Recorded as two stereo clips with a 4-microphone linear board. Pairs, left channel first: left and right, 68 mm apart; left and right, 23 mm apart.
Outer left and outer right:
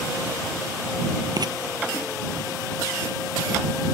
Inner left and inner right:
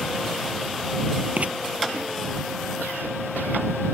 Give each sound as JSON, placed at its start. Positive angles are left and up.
{"t": 1.4, "sound": "writing", "side_deg": -75}